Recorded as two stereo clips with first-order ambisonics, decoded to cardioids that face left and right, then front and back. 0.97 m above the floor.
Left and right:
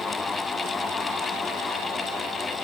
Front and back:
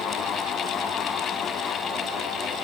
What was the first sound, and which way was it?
Only background noise.